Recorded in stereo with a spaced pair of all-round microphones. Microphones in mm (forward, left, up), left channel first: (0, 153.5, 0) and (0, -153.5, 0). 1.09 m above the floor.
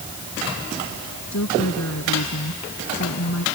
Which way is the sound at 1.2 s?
60° left (ahead or behind).